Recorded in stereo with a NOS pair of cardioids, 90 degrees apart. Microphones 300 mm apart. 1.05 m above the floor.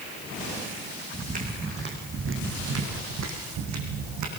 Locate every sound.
1.1 s footsteps: 25° right, 4 m; by 4.3 s 80° right, 4 m